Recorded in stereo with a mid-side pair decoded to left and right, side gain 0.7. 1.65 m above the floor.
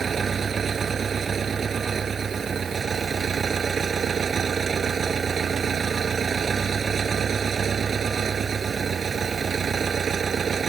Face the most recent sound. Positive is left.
turn(degrees=-30)